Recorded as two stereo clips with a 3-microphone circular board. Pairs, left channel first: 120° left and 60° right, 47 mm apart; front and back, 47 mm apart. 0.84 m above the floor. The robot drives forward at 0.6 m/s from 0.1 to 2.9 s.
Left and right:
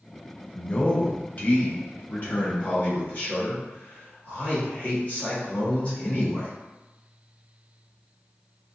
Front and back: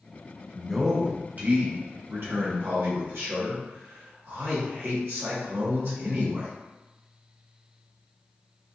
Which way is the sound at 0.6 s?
90° left.